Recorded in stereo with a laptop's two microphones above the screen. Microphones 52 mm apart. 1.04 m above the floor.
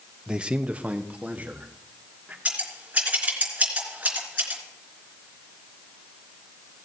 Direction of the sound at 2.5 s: 25° right (ahead or behind).